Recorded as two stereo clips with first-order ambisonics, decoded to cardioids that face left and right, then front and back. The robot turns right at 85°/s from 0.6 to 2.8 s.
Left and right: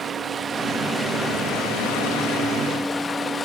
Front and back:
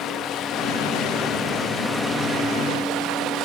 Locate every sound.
0.0 s running water: 30° right, 0.8 m; by 3.5 s 160° left, 0.8 m